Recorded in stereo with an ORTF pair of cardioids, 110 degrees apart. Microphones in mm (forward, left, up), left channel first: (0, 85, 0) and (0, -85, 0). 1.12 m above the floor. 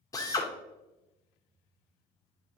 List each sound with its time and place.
0.1 s a drill: 20° left, 1.5 m